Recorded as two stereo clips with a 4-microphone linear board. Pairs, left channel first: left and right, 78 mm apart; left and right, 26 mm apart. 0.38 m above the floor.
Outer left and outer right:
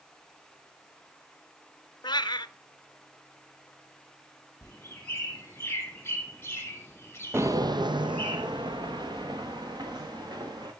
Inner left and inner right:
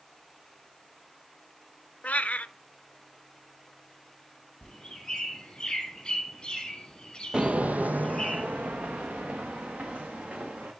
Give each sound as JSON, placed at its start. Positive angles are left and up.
{"t": 2.0, "sound": "a cat meowing", "side_deg": 70, "distance_m": 0.6}
{"t": 4.6, "sound": "a bird", "side_deg": 30, "distance_m": 3.0}
{"t": 7.3, "sound": "footsteps", "side_deg": -30, "distance_m": 0.6}